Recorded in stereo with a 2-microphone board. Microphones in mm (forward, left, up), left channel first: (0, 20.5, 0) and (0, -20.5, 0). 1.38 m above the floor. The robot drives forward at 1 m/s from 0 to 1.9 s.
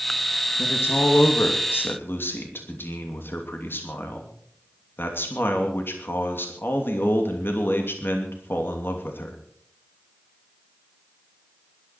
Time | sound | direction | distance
0.6 | a man speaking | 80° left | 2.5 m